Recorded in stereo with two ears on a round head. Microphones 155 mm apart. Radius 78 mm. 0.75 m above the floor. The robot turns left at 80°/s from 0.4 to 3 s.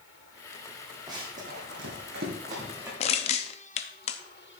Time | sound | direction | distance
1.1 | running footsteps | 20° right (ahead or behind) | 2.5 m
3.0 | crushing | 35° left (ahead or behind) | 0.7 m